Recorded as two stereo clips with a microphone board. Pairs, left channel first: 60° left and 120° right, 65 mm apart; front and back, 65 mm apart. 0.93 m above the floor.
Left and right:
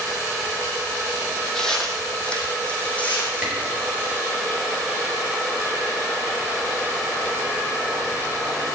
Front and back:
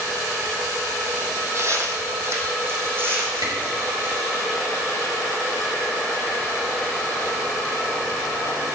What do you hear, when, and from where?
1.6 s footsteps: 145° left, 2 m; by 4.4 s 125° left, 4.5 m
3.4 s a camera shutter: 165° left, 5 m